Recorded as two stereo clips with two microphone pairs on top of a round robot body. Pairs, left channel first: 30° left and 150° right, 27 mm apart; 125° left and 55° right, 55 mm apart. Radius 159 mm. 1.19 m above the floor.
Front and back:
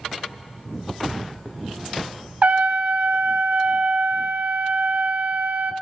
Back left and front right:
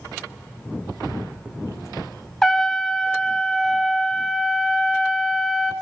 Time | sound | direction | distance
2.4 | a trumpet | 165° right | 0.6 m